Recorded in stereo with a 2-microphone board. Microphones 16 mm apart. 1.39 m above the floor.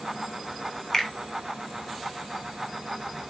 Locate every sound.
0.9 s a finger snap: 35° left (ahead or behind), 3 m